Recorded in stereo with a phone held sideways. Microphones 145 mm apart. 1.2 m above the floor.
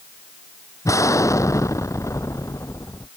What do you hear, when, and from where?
0.8 s an explosion: 20° left (ahead or behind)